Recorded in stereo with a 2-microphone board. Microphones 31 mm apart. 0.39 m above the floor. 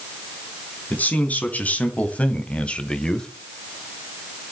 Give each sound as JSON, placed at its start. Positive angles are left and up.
{"t": 0.9, "sound": "a man speaking", "side_deg": 55, "distance_m": 3.5}